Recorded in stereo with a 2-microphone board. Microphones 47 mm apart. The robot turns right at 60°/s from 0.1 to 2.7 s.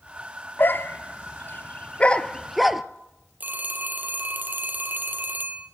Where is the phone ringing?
40° right (ahead or behind), 2 m.